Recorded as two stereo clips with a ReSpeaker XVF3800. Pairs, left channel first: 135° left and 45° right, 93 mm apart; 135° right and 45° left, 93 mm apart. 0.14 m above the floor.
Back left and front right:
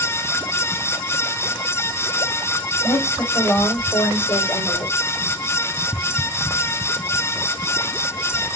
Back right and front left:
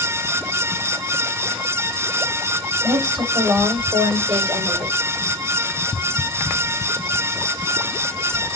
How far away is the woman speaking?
About 6.5 m.